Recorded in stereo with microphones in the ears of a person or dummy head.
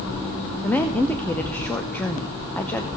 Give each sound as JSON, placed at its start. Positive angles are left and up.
{"t": 0.6, "sound": "a woman speaking", "side_deg": 10, "distance_m": 0.6}